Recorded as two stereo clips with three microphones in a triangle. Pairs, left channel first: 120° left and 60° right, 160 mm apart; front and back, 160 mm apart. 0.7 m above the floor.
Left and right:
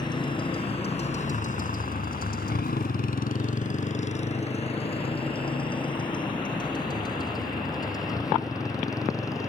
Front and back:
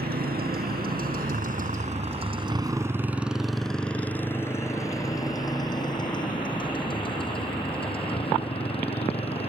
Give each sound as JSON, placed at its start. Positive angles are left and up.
{"t": 0.0, "sound": "a motorcycle", "azimuth_deg": -175}